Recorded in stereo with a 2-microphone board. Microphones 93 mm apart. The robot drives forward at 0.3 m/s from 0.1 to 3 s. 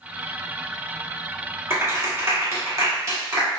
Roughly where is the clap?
Right.